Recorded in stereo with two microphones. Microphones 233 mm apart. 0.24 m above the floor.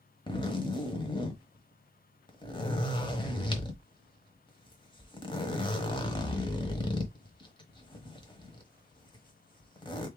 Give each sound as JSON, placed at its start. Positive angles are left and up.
{"t": 0.3, "sound": "a zipper", "side_deg": 20, "distance_m": 1.1}